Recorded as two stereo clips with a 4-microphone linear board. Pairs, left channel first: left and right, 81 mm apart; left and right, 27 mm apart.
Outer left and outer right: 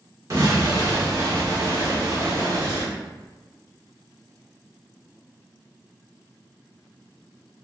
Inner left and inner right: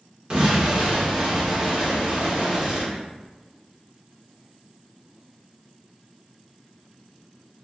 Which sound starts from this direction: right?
An explosion, at 0.3 s.